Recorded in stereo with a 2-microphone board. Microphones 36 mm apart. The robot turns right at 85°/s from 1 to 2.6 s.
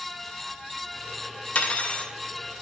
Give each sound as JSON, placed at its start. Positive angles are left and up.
{"t": 1.6, "sound": "cutlery clinking", "azimuth_deg": 100, "distance_m": 0.7}